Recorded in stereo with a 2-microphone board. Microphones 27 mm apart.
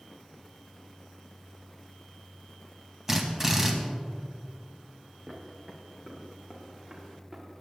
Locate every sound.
3.1 s a drill: 15° right (ahead or behind), 2 m
5.3 s footsteps: 35° right (ahead or behind), 4 m; by 7.5 s 20° right (ahead or behind), 5 m